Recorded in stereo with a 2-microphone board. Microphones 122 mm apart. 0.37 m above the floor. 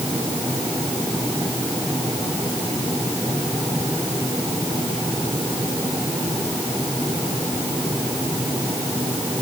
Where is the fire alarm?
No fire alarm in this recording.